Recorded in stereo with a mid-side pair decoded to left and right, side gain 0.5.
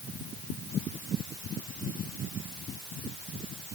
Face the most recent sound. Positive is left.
No sound to turn to.